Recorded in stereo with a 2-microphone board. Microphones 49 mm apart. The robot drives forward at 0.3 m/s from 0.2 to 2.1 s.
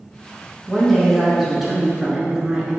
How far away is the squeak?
No squeak in this recording.